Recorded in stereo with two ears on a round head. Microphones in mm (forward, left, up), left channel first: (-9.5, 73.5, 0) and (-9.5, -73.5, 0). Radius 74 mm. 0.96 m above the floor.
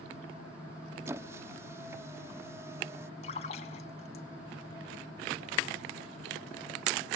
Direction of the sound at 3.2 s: 40° left (ahead or behind).